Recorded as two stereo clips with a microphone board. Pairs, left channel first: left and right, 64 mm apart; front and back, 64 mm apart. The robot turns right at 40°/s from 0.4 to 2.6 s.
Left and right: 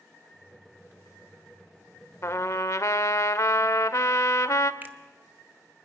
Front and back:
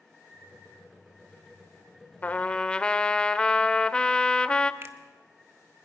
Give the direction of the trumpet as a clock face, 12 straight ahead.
10 o'clock.